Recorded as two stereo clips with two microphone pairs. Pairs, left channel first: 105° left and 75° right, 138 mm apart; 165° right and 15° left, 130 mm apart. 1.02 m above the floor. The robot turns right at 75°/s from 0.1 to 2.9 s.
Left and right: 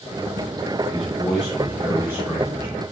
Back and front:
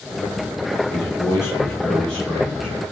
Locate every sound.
0.9 s a man speaking: 175° left, 0.7 m; by 2.8 s 50° right, 0.7 m